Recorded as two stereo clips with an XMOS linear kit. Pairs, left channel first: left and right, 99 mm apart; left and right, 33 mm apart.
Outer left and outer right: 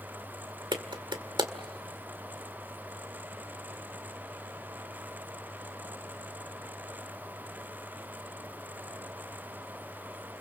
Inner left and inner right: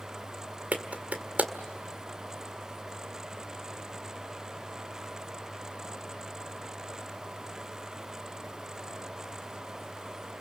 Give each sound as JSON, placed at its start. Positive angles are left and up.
{"t": 0.7, "sound": "a clap", "side_deg": -55, "distance_m": 1.7}